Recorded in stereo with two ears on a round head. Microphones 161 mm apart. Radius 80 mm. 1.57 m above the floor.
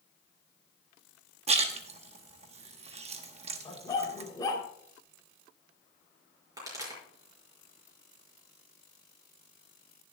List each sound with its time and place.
1.5 s a splash: 35° right (ahead or behind), 1.0 m
3.6 s a dog barking: 20° left (ahead or behind), 2.5 m
6.6 s a pop: 20° right (ahead or behind), 5 m